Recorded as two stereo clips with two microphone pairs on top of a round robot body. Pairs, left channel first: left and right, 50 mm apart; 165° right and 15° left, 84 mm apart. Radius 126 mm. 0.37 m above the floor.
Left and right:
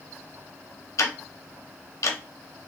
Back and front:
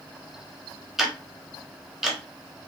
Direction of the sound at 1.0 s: 100° left.